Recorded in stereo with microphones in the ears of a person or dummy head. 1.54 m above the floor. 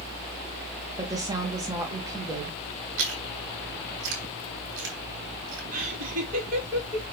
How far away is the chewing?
About 3 m.